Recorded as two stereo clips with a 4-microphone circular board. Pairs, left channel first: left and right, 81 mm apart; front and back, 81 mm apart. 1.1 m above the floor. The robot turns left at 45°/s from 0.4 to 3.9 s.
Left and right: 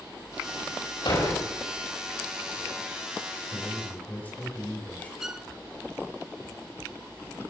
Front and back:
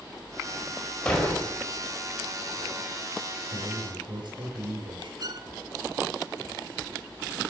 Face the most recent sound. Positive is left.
turn(degrees=-170)